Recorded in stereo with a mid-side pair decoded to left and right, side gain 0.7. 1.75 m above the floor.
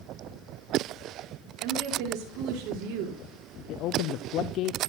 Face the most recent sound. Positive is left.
turn(degrees=55)